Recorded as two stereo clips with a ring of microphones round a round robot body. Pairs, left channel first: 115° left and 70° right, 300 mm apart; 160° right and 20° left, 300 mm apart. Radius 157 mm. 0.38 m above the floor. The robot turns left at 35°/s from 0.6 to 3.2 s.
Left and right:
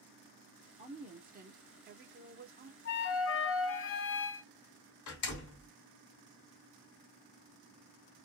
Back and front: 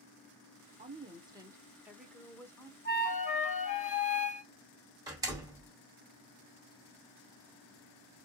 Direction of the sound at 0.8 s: 25° right.